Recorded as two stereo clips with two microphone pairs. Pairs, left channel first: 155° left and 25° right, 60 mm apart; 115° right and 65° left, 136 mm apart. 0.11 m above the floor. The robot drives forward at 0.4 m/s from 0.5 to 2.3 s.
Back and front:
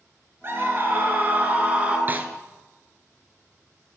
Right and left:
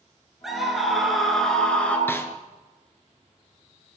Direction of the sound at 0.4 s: 25° right.